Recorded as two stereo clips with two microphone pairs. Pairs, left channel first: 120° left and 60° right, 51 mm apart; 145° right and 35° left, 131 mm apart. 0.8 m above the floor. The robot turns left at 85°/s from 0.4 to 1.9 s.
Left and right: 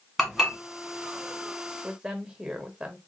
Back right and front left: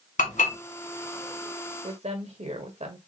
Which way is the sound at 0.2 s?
150° right.